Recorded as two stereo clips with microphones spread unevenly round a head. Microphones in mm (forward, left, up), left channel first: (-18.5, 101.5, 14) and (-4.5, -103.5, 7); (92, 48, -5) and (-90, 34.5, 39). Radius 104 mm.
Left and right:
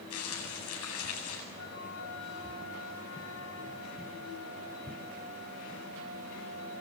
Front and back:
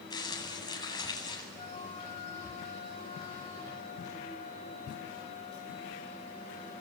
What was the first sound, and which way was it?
Crumpling, 75° left.